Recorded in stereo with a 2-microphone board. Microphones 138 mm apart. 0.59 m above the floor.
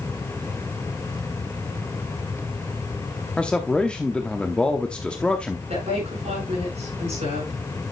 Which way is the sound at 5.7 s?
60° right (ahead or behind).